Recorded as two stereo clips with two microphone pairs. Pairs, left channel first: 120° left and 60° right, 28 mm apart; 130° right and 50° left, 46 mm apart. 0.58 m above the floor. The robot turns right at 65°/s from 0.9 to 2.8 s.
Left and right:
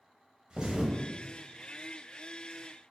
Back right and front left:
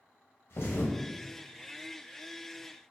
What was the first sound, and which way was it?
A thud, 120° right.